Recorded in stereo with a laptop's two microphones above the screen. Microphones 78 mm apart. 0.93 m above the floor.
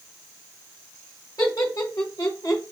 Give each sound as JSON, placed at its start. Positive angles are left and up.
{"t": 1.4, "sound": "laughter", "side_deg": 45, "distance_m": 1.0}